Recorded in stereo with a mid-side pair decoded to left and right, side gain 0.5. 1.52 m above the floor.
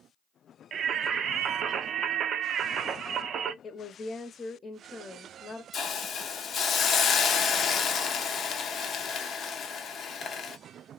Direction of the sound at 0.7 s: 55° right.